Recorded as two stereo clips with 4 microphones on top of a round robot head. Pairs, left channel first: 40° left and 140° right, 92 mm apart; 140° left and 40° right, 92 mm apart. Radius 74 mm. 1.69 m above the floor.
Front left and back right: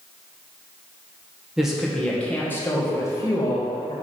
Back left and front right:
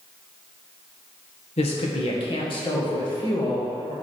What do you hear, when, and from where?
1.6 s a woman speaking: 135° left, 1.6 m; by 3.9 s 90° left, 2.5 m